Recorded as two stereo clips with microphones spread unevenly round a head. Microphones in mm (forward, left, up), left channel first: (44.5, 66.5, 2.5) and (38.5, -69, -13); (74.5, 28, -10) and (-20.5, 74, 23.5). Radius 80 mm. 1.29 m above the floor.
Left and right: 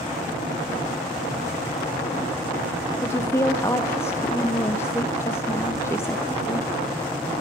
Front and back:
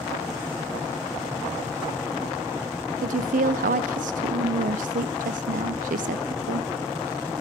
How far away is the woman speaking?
About 0.6 m.